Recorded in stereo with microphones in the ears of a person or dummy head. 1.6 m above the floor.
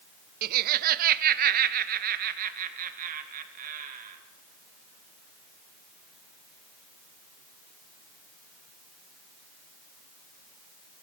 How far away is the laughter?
About 0.5 m.